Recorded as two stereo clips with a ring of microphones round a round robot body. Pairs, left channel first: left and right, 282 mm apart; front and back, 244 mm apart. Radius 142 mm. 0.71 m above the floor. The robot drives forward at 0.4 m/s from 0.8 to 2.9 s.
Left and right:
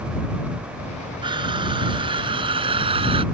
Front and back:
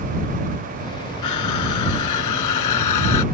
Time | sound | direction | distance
1.2 | crushing | 15° right | ?